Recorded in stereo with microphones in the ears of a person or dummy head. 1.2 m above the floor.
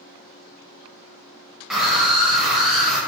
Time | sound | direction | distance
1.7 | a scream | centre (ahead or behind) | 0.9 m